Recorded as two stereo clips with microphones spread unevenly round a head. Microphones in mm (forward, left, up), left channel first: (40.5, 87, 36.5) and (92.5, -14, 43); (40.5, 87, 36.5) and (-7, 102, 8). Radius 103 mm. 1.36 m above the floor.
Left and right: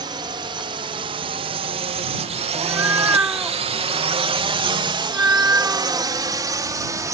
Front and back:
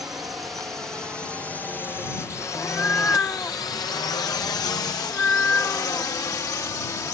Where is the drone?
125° right; by 7.1 s 5° right.